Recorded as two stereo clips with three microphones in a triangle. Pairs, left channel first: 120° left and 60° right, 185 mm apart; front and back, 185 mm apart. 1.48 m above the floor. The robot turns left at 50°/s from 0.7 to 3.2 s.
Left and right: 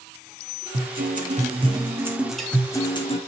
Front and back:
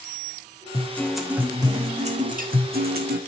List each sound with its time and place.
0.7 s a guitar: 70° right, 1.5 m; by 3.2 s 170° left, 1.5 m